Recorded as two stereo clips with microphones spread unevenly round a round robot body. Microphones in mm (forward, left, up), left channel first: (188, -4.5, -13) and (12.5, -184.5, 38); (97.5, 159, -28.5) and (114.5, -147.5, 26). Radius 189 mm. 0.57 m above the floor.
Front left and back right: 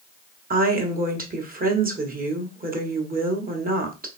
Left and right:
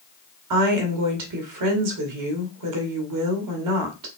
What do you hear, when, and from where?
0.5 s a woman speaking: 75° right, 1.6 m